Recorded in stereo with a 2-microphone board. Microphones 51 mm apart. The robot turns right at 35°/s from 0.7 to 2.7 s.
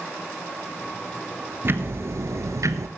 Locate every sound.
1.6 s ticking: 135° right, 0.9 m; by 2.9 s 95° right, 0.9 m